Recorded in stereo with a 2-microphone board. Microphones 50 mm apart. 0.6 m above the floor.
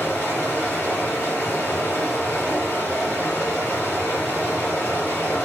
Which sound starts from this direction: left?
Running water, at 0.0 s.